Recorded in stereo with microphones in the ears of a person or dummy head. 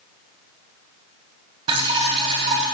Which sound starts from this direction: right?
Dripping, at 1.7 s.